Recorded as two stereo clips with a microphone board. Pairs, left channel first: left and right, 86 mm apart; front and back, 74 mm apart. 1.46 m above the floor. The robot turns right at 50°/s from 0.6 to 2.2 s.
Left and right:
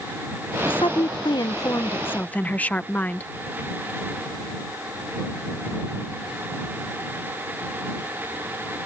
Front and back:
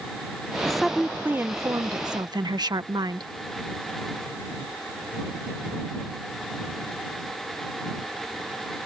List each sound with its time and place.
0.7 s a woman speaking: 85° left; by 3.3 s 160° left